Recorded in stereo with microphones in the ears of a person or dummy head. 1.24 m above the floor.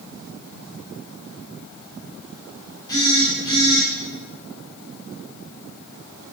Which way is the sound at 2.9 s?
15° left (ahead or behind).